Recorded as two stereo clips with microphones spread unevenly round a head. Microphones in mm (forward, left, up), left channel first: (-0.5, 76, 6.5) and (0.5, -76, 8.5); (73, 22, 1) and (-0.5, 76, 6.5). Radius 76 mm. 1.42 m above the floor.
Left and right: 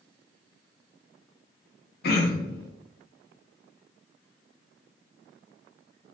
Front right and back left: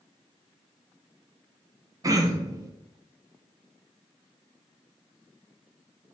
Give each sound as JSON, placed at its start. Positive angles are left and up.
{"t": 2.0, "sound": "throat clearing", "azimuth_deg": 100, "distance_m": 0.6}